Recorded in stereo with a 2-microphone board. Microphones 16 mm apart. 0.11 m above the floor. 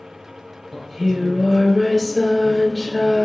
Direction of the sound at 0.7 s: 20° right (ahead or behind).